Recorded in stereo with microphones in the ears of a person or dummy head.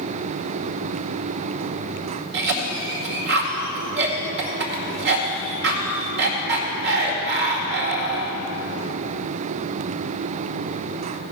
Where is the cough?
60° right (ahead or behind), 2.0 m.